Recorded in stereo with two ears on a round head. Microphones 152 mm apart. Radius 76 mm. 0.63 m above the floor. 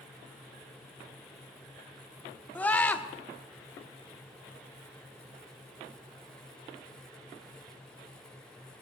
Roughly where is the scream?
Centre.